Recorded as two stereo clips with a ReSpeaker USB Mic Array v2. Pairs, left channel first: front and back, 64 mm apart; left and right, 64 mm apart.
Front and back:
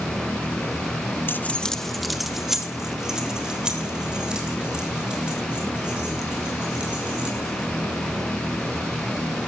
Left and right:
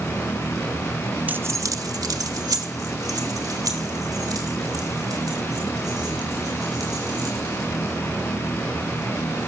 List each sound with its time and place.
1.3 s keys jangling: 35° right, 0.6 m; by 7.7 s 105° right, 9 m